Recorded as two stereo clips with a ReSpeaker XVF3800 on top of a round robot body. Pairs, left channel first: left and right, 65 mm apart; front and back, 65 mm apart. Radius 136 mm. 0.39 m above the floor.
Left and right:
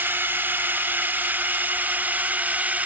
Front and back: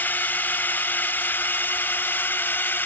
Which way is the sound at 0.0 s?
45° right.